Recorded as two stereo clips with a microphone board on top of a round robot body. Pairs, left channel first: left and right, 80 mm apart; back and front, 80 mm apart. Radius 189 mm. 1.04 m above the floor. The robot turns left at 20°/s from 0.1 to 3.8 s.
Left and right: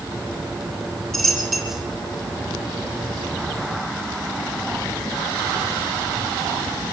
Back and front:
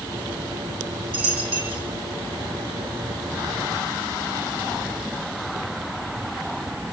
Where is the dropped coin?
10° left, 1.4 m; by 1.8 s 5° right, 1.4 m.